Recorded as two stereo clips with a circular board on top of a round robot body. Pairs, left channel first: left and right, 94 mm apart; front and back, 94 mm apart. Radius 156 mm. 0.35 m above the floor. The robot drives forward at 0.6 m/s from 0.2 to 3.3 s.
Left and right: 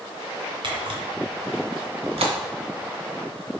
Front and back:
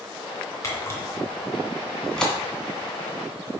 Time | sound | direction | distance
0.6 | a camera shutter | 55° right | 2 m